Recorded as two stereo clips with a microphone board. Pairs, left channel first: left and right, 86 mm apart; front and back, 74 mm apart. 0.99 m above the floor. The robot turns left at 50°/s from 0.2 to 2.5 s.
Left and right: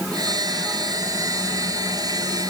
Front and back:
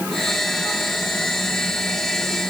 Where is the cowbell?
No cowbell in this recording.